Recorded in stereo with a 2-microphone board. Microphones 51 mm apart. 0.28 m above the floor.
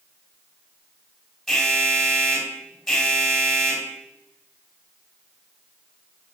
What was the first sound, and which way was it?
An alarm, centre (ahead or behind).